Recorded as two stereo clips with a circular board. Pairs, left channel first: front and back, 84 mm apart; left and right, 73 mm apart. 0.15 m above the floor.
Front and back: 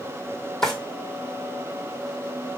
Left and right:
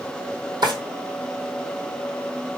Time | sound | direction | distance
0.6 | a drawer | 80° right | 1.8 m